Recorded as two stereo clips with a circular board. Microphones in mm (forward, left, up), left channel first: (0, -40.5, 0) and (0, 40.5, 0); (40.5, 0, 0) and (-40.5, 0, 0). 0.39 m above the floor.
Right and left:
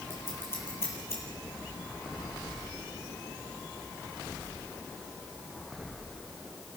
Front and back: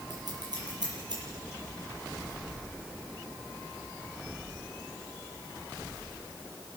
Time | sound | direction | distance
0.1 | scissors | 150° right | 8 m